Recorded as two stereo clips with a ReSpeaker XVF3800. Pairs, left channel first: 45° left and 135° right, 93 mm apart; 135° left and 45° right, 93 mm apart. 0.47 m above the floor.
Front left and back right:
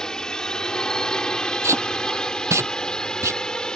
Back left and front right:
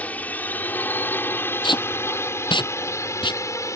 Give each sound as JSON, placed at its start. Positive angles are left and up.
{"t": 0.0, "sound": "a drone", "azimuth_deg": 110}
{"t": 1.6, "sound": "tape being pulled", "azimuth_deg": 165}